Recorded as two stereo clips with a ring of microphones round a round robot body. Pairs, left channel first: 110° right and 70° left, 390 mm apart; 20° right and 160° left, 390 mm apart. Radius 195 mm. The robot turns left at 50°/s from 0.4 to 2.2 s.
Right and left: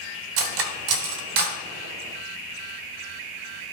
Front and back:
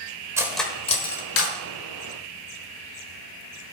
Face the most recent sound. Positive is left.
turn(degrees=-15)